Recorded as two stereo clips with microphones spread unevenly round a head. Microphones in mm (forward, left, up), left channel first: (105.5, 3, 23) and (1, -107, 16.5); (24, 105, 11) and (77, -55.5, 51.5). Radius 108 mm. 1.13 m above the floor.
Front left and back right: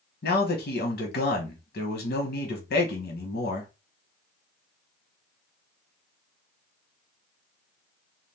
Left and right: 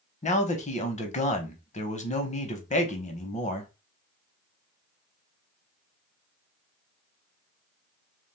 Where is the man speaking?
70° left, 1.0 m.